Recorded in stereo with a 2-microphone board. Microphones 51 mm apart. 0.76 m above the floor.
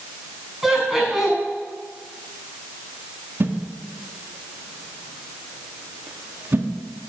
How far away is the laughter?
About 6 m.